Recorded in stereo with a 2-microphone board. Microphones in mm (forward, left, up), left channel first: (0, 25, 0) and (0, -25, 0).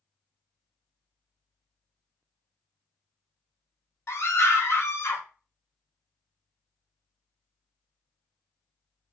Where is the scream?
50° left (ahead or behind), 1.6 m.